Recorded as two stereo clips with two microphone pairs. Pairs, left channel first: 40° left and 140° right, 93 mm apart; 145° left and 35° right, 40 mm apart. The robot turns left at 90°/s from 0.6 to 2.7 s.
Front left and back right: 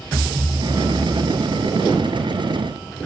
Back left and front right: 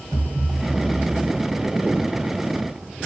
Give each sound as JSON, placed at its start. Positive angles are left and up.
{"t": 0.1, "sound": "a thud", "azimuth_deg": -160, "distance_m": 2.0}